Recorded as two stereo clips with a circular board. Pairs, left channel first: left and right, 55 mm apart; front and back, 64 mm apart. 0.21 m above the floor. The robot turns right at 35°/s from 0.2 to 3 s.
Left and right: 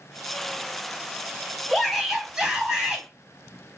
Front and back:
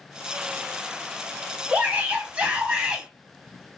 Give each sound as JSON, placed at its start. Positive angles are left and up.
{"t": 1.7, "sound": "a shout", "azimuth_deg": 180, "distance_m": 1.0}